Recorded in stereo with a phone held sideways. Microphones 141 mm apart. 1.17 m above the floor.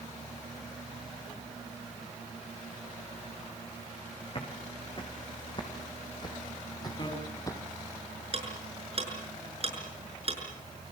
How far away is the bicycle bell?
About 6.5 m.